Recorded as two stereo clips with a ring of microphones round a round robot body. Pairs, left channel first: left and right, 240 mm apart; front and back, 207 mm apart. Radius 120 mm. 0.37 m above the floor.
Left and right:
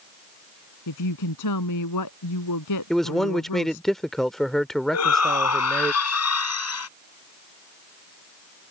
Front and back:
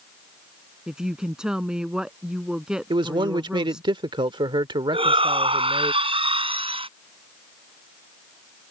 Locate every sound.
0.9 s a woman speaking: 95° left
2.9 s a man speaking: 175° left
4.9 s a shout: 115° left